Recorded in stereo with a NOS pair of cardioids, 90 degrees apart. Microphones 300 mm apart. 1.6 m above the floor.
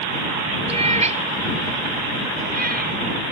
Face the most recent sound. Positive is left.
turn(degrees=-30)